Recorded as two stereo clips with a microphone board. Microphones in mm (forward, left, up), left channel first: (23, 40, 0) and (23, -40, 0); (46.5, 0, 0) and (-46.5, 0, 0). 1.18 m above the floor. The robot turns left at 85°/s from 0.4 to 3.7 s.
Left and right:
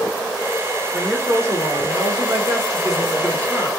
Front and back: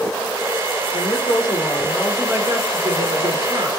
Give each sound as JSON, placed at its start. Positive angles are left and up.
{"t": 0.9, "sound": "a woman speaking", "azimuth_deg": 15, "distance_m": 0.9}